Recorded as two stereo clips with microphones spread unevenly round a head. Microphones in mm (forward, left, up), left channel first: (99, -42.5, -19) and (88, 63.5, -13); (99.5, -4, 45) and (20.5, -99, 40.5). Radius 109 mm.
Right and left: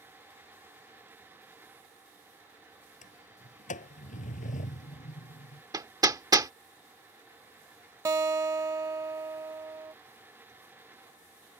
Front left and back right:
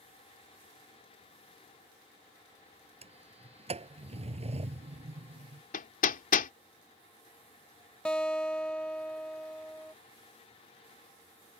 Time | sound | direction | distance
3.0 | a sliding door | 90° right | ?
5.7 | hammering | 40° left | ?
8.1 | a guitar | 130° left | ?